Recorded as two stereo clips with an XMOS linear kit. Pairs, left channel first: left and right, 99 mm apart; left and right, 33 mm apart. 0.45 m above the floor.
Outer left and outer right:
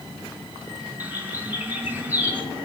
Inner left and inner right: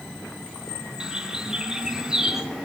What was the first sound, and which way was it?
A bird, 15° right (ahead or behind).